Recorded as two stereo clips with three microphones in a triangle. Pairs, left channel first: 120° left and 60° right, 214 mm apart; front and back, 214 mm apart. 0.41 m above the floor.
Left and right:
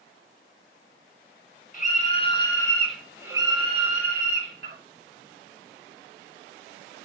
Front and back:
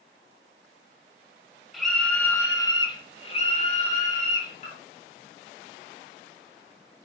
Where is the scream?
90° left, 1.1 m; by 4.8 s 45° right, 1.4 m.